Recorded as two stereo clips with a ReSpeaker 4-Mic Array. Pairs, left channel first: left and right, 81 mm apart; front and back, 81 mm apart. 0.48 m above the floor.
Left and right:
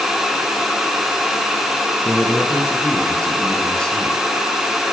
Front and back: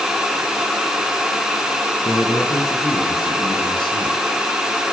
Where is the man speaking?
25° left, 4.5 m; by 4.2 s 10° left, 4 m.